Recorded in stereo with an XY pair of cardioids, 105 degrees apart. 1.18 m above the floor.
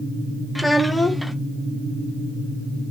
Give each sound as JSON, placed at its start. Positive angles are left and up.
{"t": 0.6, "sound": "a child speaking", "azimuth_deg": 0, "distance_m": 0.6}